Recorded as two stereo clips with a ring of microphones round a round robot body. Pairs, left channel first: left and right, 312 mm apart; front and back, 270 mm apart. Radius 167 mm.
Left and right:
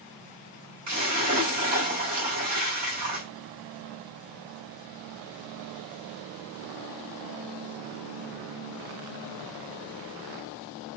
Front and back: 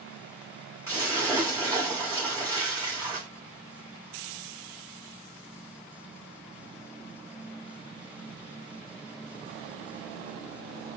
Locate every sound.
0.9 s a splash: 100° right, 1.8 m